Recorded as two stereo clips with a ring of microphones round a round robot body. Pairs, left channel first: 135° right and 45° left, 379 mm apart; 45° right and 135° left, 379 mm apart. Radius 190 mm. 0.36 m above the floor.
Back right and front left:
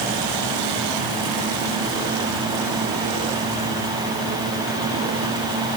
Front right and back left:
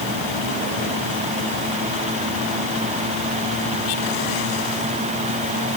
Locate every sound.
Only background noise.